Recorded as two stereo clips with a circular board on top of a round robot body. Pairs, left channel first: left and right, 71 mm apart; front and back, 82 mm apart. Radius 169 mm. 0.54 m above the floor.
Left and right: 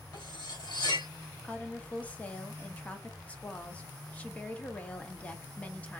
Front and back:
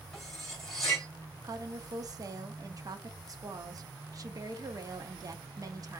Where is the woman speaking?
155° left, 1.0 m.